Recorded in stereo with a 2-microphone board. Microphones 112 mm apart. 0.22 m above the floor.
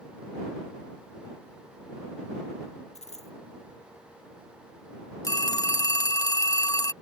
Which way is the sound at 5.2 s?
30° left (ahead or behind).